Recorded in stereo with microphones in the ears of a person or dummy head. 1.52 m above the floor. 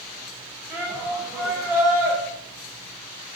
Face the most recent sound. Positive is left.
turn(degrees=-10)  # may be behind; listen again after turning